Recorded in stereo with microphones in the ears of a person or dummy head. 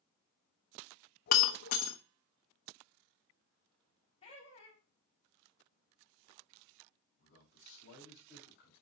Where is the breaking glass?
50° left (ahead or behind), 0.9 m.